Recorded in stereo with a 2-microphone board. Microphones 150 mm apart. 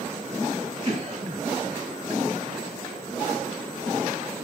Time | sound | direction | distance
0.8 | a cough | 40° right (ahead or behind) | 5.5 m